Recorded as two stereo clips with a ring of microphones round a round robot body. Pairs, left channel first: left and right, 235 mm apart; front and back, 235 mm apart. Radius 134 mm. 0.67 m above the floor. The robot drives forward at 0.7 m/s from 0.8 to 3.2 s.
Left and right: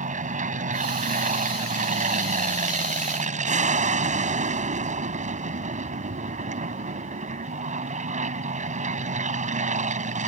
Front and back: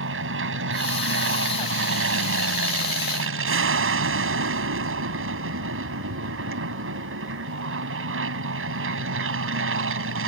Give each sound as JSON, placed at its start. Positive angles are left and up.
{"t": 0.0, "sound": "an aircraft", "azimuth_deg": -145}